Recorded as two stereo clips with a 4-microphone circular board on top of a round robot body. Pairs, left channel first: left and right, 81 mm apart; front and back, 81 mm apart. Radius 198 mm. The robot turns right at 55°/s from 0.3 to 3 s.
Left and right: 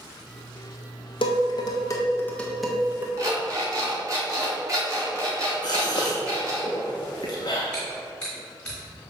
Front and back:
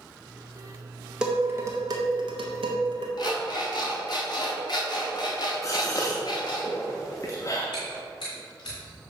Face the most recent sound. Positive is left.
turn(degrees=15)